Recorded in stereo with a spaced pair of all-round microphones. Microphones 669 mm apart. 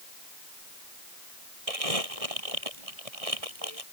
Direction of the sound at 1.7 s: 55° right (ahead or behind).